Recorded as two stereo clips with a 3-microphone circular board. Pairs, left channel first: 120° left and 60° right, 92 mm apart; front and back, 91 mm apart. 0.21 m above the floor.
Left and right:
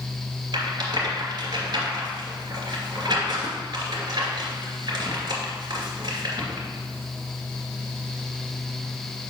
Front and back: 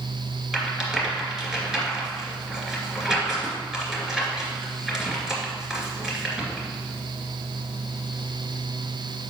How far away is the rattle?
About 2.5 m.